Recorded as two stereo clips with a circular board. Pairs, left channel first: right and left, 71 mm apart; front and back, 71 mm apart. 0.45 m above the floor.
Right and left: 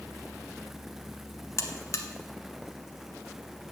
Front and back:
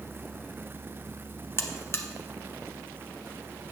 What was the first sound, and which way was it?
A buzzer, 50° right.